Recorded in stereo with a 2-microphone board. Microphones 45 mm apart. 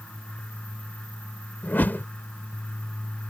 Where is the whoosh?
45° left (ahead or behind).